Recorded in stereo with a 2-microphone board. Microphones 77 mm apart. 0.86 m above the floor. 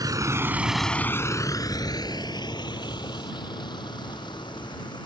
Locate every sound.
0.0 s a vehicle: 55° right (ahead or behind); by 5.1 s 80° left